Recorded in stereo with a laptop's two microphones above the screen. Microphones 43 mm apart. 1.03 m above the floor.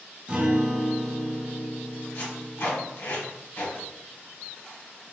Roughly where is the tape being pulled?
Left.